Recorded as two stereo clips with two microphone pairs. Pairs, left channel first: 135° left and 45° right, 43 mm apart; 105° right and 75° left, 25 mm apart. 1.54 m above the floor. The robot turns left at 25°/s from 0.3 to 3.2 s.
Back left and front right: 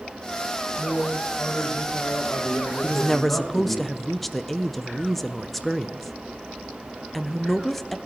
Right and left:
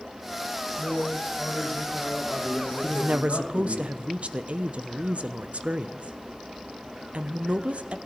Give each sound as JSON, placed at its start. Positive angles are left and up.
{"t": 0.8, "sound": "a man speaking", "azimuth_deg": -145, "distance_m": 2.0}
{"t": 2.8, "sound": "a woman speaking", "azimuth_deg": 60, "distance_m": 0.7}